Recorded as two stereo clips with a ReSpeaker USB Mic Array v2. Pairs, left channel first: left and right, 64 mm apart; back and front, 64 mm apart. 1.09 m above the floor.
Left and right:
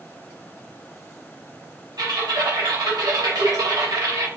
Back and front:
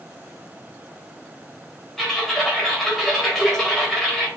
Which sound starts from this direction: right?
Typing on a keyboard, at 2.0 s.